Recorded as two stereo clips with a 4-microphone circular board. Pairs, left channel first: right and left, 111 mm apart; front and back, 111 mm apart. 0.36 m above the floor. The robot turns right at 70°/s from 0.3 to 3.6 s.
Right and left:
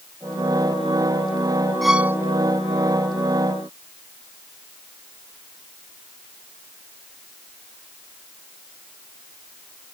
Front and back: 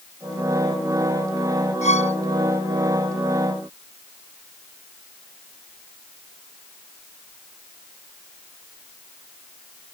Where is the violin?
Straight ahead; by 2.2 s 25° left.